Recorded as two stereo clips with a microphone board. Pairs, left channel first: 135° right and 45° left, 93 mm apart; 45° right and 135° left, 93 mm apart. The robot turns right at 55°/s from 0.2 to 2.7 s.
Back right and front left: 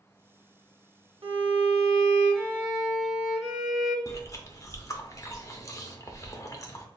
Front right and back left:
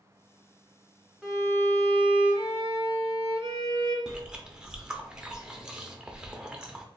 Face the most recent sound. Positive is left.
turn(degrees=-150)